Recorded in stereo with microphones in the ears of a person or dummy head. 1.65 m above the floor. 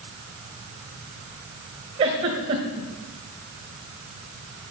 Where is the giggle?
20° right (ahead or behind), 1.5 m.